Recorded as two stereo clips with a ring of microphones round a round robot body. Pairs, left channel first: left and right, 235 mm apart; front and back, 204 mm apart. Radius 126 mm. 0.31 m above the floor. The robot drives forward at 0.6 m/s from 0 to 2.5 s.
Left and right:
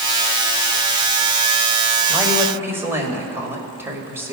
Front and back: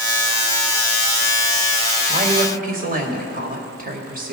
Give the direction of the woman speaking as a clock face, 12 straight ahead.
5 o'clock.